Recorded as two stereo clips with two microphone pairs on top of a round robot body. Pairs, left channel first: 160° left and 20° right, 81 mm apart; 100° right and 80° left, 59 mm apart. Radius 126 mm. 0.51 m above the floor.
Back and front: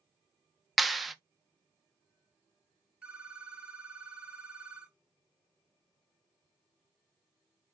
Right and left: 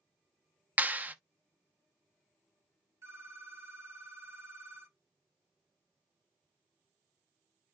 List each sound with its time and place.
0.8 s a clap: 65° left, 0.9 m
3.0 s a phone ringing: 55° left, 2.5 m